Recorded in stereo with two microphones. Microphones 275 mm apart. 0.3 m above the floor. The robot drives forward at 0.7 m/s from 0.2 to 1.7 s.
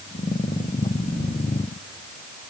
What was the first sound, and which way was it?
Only background noise.